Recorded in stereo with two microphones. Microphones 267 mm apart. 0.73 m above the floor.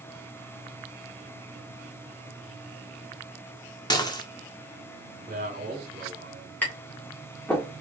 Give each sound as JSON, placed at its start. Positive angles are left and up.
{"t": 3.9, "sound": "dishes clattering", "side_deg": 15, "distance_m": 0.9}
{"t": 5.3, "sound": "a man speaking", "side_deg": -30, "distance_m": 2.0}
{"t": 6.6, "sound": "tapping", "side_deg": 5, "distance_m": 1.8}